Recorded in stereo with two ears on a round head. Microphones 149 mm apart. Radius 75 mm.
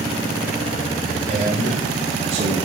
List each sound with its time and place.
1.3 s a man speaking: 75° right (ahead or behind), 7 m